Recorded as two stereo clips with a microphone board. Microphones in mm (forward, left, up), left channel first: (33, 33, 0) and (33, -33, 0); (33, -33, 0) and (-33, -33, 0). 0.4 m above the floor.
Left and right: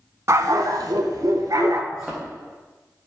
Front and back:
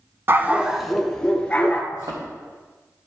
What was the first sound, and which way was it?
A dog barking, 125° right.